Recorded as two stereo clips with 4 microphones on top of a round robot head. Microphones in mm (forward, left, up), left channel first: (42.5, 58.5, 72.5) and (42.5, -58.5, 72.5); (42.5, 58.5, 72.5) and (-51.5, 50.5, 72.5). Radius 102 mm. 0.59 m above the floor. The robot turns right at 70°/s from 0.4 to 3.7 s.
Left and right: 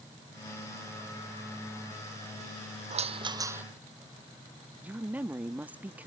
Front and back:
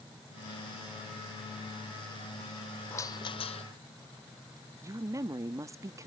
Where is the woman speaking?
160° right.